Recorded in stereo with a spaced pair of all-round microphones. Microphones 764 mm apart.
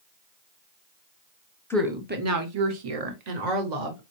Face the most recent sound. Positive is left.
turn(degrees=-75)  # may be behind; listen again after turning